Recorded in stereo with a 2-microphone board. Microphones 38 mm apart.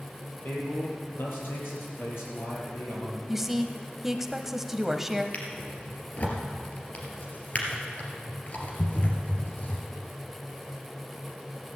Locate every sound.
0.4 s a man speaking: 55° left (ahead or behind), 5.5 m; by 3.2 s 80° left, 5.5 m
3.3 s a woman speaking: 5° right (ahead or behind), 1.0 m
5.3 s a drawer: 40° left (ahead or behind), 3 m